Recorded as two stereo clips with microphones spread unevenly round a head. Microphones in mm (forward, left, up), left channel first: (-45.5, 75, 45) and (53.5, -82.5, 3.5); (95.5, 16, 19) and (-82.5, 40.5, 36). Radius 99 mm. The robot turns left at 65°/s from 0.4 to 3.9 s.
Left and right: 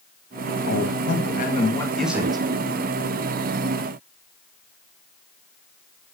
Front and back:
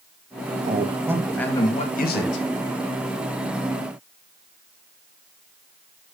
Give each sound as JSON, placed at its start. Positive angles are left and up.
{"t": 0.7, "sound": "a man speaking", "azimuth_deg": 125, "distance_m": 2.0}